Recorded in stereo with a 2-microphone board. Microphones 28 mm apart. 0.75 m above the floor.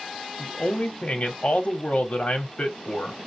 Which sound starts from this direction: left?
A man speaking, at 0.4 s.